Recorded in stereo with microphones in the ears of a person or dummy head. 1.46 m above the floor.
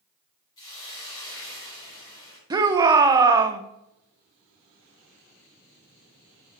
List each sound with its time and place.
0.6 s a hiss: 20° left (ahead or behind), 3.5 m
2.5 s a shout: 20° right (ahead or behind), 0.7 m